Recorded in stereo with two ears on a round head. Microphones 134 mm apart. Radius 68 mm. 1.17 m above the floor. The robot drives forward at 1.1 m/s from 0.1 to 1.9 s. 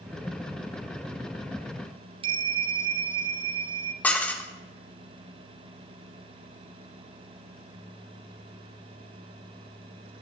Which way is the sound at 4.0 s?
10° left (ahead or behind).